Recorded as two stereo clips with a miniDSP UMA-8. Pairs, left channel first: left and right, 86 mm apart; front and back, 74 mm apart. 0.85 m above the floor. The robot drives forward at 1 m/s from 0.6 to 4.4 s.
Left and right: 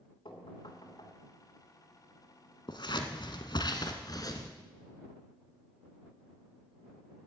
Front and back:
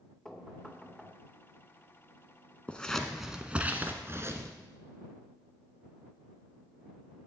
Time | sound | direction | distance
0.2 | knocking | 80° left | 2.5 m
2.7 | scissors | 70° left | 1.6 m